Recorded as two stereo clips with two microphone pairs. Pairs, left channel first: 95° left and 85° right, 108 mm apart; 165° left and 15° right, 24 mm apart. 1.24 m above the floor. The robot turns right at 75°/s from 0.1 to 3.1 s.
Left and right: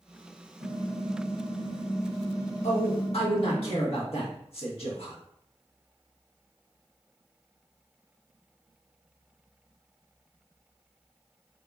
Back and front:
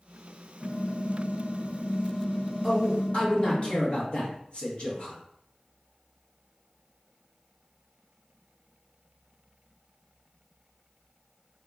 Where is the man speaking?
90° left, 1.2 m; by 5.2 s 120° left, 1.2 m.